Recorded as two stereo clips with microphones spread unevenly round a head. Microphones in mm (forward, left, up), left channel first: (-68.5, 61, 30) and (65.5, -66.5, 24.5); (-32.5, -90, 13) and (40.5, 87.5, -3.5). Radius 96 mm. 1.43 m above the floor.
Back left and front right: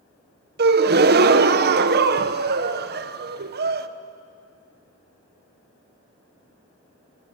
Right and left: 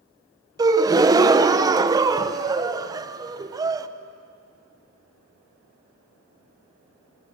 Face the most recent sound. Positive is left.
turn(degrees=-5)